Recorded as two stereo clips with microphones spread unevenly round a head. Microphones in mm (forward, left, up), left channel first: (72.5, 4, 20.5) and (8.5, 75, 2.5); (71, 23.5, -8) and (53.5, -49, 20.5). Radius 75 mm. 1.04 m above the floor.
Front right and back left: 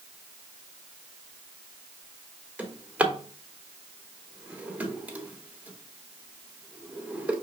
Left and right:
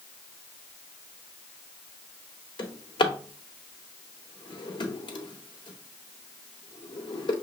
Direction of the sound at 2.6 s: 50° left.